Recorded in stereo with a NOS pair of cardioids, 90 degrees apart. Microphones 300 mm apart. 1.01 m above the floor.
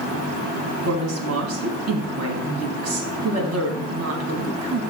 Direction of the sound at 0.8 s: 60° right.